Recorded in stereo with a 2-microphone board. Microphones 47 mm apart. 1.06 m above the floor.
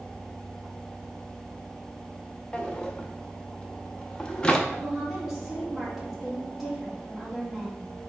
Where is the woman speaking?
5° right (ahead or behind), 1.7 m.